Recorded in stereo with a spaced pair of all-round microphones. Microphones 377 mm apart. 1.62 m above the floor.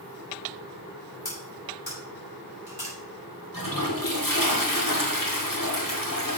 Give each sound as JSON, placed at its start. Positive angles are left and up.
{"t": 1.2, "sound": "cutlery clinking", "side_deg": 80, "distance_m": 5.5}
{"t": 3.5, "sound": "a toilet flushing", "side_deg": 60, "distance_m": 2.0}